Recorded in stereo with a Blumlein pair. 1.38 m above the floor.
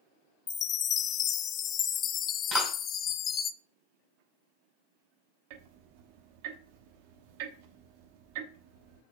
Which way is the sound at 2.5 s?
10° right.